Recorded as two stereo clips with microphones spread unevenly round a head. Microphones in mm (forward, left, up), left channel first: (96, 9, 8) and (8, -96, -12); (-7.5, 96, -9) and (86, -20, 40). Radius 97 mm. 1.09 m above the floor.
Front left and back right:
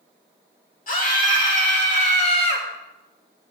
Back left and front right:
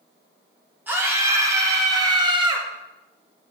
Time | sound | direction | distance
0.9 | a scream | 30° left | 3 m